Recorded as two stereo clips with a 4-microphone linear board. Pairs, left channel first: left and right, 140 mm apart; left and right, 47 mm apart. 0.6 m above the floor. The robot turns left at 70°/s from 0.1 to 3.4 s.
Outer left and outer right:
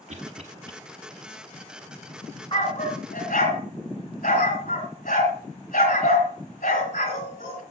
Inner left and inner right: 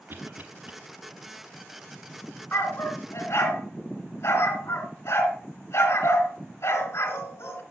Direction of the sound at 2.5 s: 35° left (ahead or behind).